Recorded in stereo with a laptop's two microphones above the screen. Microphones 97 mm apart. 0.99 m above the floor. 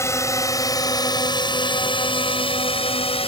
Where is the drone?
30° left (ahead or behind); by 3.3 s 80° left.